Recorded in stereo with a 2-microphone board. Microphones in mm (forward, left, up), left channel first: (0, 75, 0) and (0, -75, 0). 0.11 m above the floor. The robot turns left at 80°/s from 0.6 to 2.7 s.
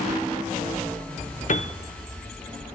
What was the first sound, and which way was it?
A piano, 55° left (ahead or behind).